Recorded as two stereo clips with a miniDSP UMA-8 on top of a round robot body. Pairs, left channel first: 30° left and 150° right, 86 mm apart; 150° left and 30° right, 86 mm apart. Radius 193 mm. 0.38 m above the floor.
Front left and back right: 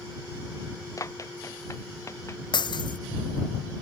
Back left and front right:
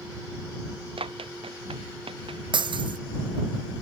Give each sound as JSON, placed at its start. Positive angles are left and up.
{"t": 1.0, "sound": "running footsteps", "azimuth_deg": -25}
{"t": 2.5, "sound": "breaking glass", "azimuth_deg": 0}